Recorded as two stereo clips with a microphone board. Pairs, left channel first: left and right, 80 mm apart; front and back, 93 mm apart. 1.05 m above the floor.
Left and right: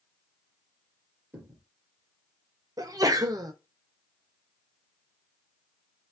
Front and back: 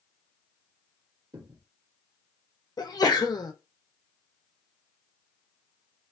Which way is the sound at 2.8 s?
45° right.